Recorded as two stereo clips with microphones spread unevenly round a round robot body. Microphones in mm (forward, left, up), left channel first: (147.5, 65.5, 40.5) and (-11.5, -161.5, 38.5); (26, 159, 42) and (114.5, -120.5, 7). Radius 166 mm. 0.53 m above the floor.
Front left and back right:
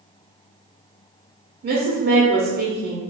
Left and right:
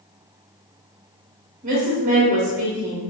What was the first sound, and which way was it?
A woman speaking, 105° right.